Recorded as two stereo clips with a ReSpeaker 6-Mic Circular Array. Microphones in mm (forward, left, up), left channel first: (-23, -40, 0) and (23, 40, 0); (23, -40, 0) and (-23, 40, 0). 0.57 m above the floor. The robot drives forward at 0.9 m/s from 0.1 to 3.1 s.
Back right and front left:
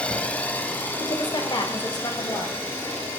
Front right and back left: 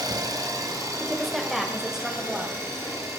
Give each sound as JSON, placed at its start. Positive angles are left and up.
{"t": 0.0, "sound": "an engine running", "azimuth_deg": 165, "distance_m": 1.0}
{"t": 1.0, "sound": "a woman speaking", "azimuth_deg": -145, "distance_m": 1.5}